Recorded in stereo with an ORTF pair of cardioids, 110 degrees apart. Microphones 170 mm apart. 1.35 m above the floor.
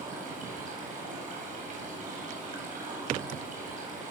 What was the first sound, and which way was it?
Running water, 50° right.